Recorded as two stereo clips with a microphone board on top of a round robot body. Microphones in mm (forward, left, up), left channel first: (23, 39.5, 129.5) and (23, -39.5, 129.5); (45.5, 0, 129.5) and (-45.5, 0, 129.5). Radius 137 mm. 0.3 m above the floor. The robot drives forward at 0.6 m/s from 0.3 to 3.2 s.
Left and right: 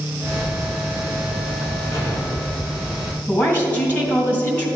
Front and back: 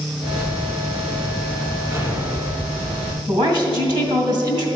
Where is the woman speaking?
155° left, 2.5 m.